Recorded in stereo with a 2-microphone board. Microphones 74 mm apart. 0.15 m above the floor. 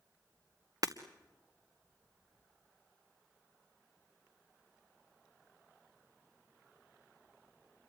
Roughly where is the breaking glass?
Right.